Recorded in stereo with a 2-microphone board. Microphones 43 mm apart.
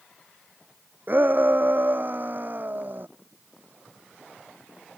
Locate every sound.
1.1 s a shout: 45° right (ahead or behind)